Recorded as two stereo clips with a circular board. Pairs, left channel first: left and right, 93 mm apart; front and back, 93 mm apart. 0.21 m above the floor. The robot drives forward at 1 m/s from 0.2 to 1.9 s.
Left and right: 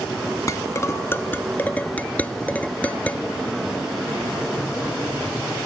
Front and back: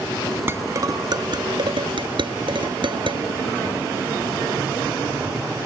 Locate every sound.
0.5 s dishes clattering: 125° left; by 3.2 s 160° left